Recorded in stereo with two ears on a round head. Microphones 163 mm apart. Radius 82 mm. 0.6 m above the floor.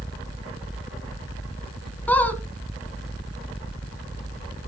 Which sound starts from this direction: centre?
A squeak, at 2.1 s.